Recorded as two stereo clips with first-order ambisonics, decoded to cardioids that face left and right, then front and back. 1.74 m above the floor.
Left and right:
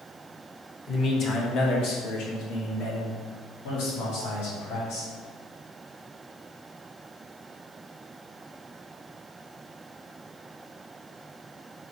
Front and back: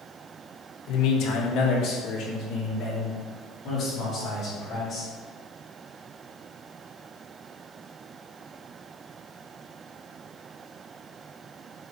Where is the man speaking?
25° left, 1.6 m; by 5.1 s 70° left, 5.5 m.